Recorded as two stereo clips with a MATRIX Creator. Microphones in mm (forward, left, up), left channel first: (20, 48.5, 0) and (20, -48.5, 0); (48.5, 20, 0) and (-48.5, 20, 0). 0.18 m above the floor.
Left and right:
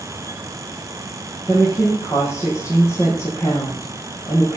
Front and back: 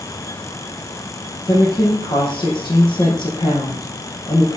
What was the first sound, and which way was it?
A woman speaking, 25° left.